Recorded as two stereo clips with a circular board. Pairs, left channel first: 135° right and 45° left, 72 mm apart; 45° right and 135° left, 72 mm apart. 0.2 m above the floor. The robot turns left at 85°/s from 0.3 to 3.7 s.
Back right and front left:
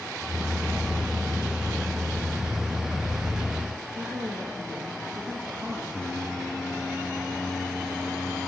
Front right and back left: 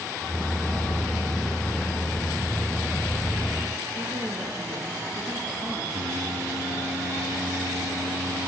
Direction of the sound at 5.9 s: 145° left.